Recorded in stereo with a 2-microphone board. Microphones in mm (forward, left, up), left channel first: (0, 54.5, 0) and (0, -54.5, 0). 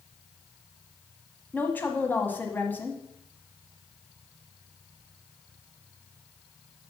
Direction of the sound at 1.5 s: 20° left (ahead or behind).